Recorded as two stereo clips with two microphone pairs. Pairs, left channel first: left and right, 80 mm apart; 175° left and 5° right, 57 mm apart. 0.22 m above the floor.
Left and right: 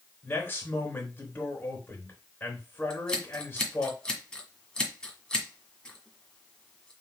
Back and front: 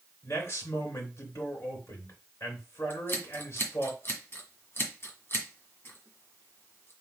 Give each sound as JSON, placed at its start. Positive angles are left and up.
{"t": 0.2, "sound": "a man speaking", "azimuth_deg": 150, "distance_m": 3.5}
{"t": 2.9, "sound": "scissors", "azimuth_deg": 165, "distance_m": 1.6}